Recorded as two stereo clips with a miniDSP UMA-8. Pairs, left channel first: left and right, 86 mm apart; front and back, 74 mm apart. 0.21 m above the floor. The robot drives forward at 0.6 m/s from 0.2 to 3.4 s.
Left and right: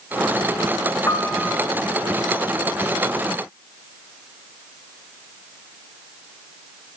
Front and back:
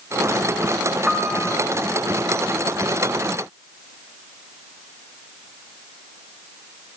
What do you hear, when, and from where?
1.1 s a piano: 105° left, 1.0 m; by 1.6 s 130° left, 1.1 m